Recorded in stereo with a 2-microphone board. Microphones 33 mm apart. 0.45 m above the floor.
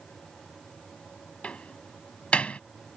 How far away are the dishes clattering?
I don't hear dishes clattering.